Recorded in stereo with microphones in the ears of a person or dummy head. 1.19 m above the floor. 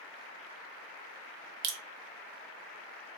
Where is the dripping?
60° right (ahead or behind), 1.0 m.